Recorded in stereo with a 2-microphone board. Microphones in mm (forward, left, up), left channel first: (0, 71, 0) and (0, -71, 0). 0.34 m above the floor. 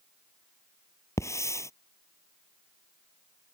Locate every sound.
1.2 s a hiss: 20° left (ahead or behind)